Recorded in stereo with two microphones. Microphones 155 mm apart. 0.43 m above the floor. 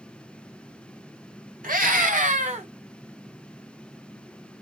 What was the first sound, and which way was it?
A scream, 70° right (ahead or behind).